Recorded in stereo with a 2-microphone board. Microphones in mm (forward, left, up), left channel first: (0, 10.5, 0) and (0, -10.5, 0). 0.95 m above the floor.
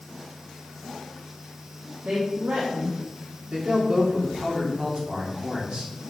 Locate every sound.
2.0 s a woman speaking: 75° right (ahead or behind), 1.8 m
3.5 s a man speaking: 55° right (ahead or behind), 3 m